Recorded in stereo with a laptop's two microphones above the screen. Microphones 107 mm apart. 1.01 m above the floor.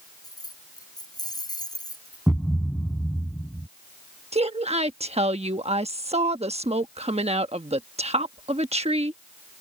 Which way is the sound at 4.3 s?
80° right.